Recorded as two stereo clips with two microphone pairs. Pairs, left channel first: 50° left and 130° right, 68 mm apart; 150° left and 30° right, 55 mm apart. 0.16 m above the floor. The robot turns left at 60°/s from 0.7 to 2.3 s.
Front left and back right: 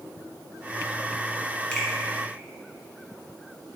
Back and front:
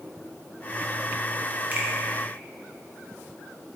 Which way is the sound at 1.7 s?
10° right.